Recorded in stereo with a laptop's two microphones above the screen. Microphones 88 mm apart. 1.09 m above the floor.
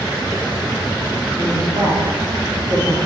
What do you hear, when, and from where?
1.4 s a woman speaking: 55° right (ahead or behind), 2.5 m